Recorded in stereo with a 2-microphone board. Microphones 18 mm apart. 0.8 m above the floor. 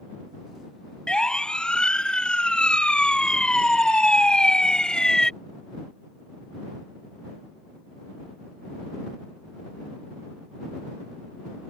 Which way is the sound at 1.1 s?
60° left (ahead or behind).